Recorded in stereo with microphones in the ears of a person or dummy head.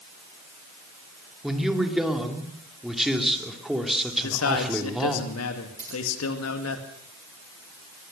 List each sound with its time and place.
1.4 s a man speaking: 5° right (ahead or behind), 3 m
4.2 s a man speaking: 75° left (ahead or behind), 2.5 m
5.8 s scissors: 15° right (ahead or behind), 5.5 m